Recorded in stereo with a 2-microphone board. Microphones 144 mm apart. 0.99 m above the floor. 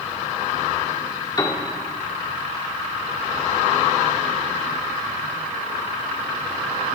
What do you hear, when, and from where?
1.4 s a piano: 30° left (ahead or behind), 1.5 m